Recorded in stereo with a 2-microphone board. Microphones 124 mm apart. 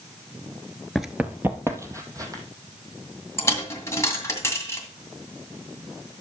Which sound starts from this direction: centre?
Running footsteps, at 0.9 s.